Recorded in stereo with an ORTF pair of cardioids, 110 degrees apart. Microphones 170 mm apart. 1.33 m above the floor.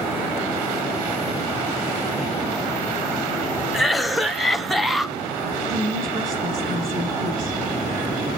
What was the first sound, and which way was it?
A cough, straight ahead.